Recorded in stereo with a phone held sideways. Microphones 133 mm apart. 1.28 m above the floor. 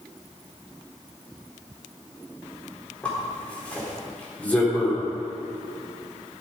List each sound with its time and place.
3.0 s a zipper: 10° left (ahead or behind), 4 m